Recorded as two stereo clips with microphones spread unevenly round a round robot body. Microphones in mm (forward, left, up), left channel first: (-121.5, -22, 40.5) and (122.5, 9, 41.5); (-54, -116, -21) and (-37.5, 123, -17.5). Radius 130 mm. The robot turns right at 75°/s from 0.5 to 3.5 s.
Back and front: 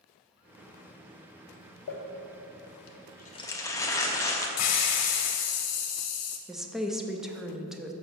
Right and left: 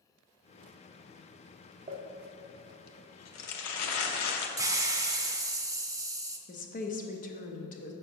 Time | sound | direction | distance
1.9 | crumpling | 145° left | 0.9 m
4.6 | a hiss | 160° left | 0.8 m
6.5 | a woman speaking | 80° right | 0.7 m